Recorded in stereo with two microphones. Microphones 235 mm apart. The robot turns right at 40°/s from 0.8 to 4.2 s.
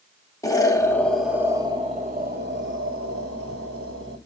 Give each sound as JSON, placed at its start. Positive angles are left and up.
{"t": 0.4, "sound": "an explosion", "azimuth_deg": 165, "distance_m": 0.6}